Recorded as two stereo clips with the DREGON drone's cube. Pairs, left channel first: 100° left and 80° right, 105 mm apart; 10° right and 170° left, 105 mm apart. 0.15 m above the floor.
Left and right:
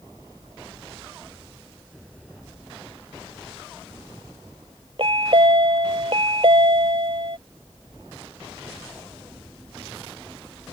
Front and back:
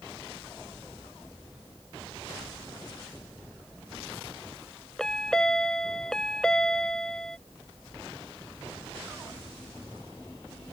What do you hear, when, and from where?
5.0 s a chime: 95° right